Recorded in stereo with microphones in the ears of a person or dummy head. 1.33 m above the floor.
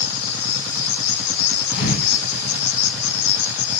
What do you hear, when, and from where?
0.0 s an insect: 80° left, 1.7 m
1.7 s a thud: 60° left (ahead or behind), 2.5 m